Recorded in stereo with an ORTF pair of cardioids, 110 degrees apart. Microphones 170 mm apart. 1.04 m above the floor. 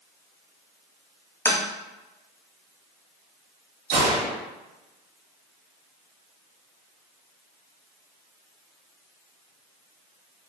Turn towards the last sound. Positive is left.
turn(degrees=-70)